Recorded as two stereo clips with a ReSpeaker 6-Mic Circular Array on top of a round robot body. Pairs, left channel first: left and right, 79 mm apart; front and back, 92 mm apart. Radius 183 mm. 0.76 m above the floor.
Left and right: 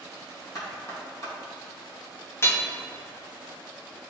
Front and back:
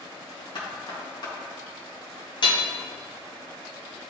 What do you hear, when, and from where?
0.6 s knocking: 40° left, 2 m
2.4 s hammering: 30° left, 1.1 m